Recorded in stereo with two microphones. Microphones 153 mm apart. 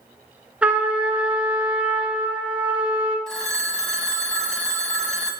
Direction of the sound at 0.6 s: 10° right (ahead or behind).